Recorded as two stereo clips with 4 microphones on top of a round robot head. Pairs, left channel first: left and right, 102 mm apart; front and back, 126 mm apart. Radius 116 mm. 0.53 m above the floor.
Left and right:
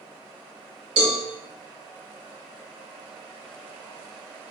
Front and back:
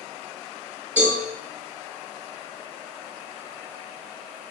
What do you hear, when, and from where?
1.0 s a cowbell: 105° right, 3.5 m